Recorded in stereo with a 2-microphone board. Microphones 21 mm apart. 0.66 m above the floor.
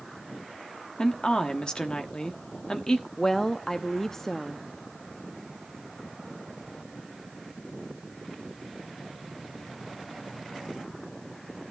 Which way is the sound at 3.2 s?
20° left (ahead or behind).